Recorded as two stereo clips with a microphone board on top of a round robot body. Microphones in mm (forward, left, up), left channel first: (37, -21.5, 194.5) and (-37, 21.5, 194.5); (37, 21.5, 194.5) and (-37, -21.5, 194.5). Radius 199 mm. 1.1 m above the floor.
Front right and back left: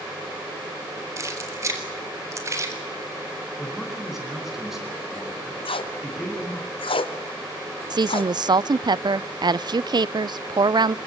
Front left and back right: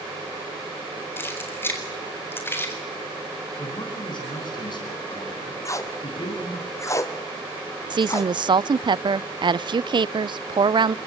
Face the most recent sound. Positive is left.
turn(degrees=180)